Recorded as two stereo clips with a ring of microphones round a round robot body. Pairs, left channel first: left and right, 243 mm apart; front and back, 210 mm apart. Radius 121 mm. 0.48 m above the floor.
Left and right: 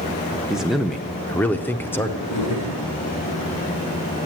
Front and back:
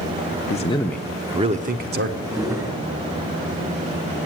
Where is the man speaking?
5° right, 0.7 m; by 2.1 s 170° left, 1.0 m.